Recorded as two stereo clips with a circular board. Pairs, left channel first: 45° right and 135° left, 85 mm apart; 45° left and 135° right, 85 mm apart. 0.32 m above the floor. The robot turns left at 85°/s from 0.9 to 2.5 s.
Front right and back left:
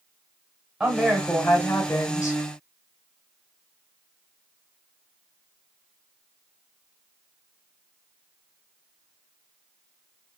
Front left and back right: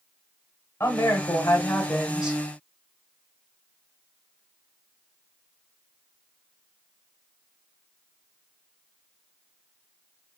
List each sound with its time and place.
0.8 s a woman speaking: 55° left, 1.2 m; by 2.4 s 70° right, 1.2 m